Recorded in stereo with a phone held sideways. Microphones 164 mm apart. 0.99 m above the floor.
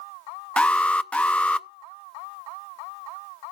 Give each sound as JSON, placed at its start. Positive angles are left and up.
{"t": 0.6, "sound": "an alarm", "side_deg": 10, "distance_m": 0.5}